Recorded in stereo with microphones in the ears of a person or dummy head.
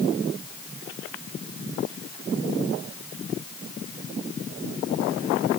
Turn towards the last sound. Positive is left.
No sound to turn to.